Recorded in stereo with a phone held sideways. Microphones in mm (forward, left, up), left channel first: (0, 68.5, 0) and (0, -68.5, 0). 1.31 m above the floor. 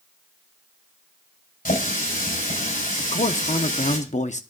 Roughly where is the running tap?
Left.